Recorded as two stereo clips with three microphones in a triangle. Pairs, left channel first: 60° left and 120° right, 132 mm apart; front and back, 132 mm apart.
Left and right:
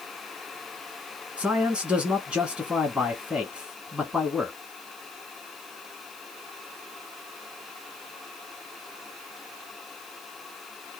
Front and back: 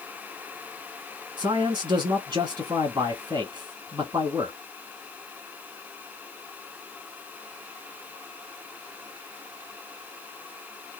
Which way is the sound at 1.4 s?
165° left.